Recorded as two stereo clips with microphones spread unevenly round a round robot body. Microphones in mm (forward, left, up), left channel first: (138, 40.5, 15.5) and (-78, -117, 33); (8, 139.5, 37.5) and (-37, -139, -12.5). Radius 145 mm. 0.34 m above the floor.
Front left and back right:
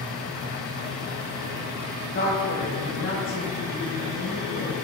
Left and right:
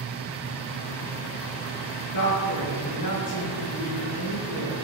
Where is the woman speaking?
95° left, 4.5 m.